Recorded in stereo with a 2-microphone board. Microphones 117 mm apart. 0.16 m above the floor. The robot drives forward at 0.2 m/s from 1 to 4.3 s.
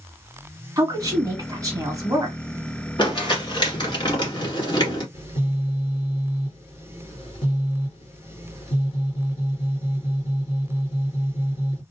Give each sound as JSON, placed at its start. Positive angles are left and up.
{"t": 0.8, "sound": "a woman speaking", "side_deg": -30, "distance_m": 1.6}
{"t": 3.0, "sound": "crumpling", "side_deg": 40, "distance_m": 1.9}
{"t": 5.1, "sound": "a phone buzzing", "side_deg": 50, "distance_m": 3.0}